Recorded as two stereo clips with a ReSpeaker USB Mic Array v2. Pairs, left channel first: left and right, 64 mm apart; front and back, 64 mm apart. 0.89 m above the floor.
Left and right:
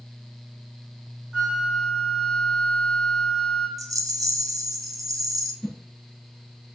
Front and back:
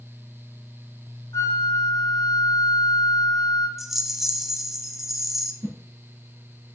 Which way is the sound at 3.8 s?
95° right.